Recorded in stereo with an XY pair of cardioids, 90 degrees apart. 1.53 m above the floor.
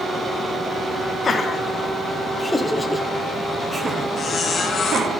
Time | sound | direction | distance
1.2 | laughter | 45° left | 2.0 m
4.2 | a squeak | 55° left | 1.7 m